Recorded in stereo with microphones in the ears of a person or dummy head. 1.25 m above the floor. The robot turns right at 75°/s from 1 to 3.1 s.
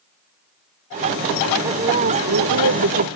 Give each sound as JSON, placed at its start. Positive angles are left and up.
{"t": 1.6, "sound": "a woman speaking", "azimuth_deg": -165}